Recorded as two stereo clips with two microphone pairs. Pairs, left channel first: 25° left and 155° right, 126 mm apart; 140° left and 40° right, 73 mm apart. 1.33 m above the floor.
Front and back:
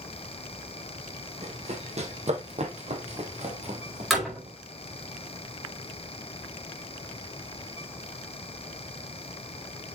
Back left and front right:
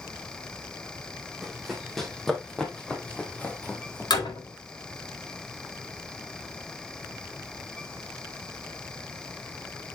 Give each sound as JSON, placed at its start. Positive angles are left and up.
{"t": 1.4, "sound": "running footsteps", "azimuth_deg": -130, "distance_m": 3.0}
{"t": 4.1, "sound": "a door slam", "azimuth_deg": 120, "distance_m": 4.5}